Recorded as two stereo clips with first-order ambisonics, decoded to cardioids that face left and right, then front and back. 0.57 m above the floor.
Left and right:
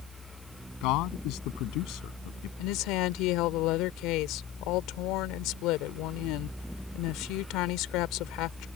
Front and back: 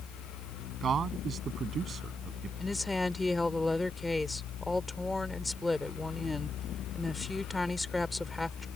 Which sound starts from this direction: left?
A woman speaking, at 2.6 s.